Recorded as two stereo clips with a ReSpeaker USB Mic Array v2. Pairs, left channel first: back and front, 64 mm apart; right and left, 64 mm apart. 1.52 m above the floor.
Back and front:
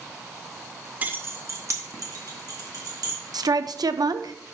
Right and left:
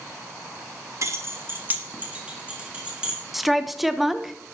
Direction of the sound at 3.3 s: Straight ahead.